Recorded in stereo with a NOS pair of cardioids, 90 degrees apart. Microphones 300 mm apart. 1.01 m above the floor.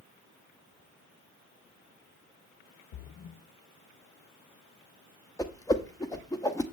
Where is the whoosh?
10° left, 0.9 m.